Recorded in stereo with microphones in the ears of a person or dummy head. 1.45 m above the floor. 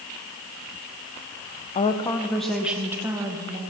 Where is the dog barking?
No dog barking in this recording.